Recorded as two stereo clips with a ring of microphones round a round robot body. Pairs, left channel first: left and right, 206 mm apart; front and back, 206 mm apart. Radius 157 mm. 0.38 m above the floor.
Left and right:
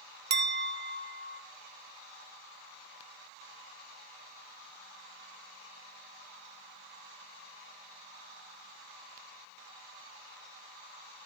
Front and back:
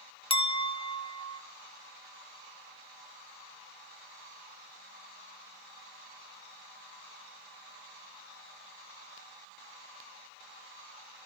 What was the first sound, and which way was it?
A clink, 65° right.